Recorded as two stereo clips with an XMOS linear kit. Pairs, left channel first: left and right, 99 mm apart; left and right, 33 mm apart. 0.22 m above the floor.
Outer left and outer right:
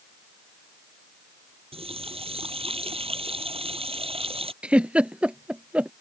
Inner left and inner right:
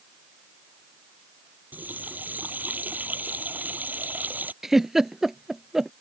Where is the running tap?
75° right (ahead or behind).